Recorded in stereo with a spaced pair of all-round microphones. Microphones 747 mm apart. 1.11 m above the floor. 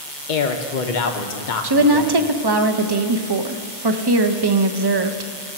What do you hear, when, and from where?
0.3 s a man speaking: 80° left, 1.0 m
1.6 s a woman speaking: 35° right (ahead or behind), 0.6 m